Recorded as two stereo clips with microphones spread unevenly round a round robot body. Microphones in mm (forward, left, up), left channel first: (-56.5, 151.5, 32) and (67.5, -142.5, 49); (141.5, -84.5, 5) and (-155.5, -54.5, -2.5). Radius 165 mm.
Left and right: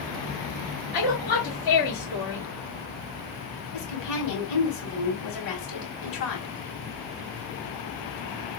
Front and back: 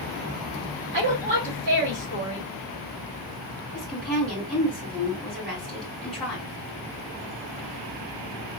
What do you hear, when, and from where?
0.9 s a woman speaking: 110° left, 2.5 m
3.7 s a woman speaking: 85° left, 2.5 m